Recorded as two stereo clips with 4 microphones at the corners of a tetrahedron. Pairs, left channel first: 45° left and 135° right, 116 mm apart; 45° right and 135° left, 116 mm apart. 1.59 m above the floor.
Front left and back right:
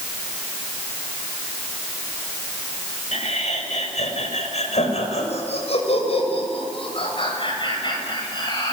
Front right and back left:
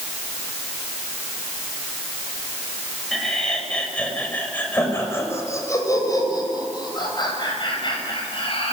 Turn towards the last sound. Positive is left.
turn(degrees=-5)